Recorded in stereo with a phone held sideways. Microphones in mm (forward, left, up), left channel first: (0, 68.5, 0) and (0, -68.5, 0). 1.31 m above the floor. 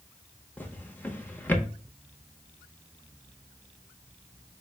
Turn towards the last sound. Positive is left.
turn(degrees=15)  # may be behind; listen again after turning